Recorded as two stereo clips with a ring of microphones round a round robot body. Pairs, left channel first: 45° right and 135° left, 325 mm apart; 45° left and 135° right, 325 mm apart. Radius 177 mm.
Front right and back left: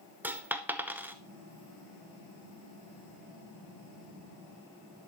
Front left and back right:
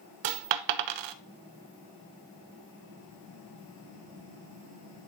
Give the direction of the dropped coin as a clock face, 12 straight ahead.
5 o'clock.